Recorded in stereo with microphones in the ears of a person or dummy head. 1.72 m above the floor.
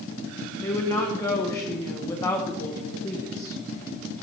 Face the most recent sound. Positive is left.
turn(degrees=15)  # may be behind; listen again after turning